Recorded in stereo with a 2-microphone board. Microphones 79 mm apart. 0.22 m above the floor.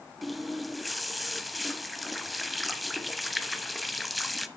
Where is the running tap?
Centre (ahead or behind), 0.6 m.